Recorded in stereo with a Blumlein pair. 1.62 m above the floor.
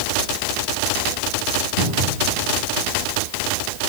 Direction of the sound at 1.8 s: 60° right.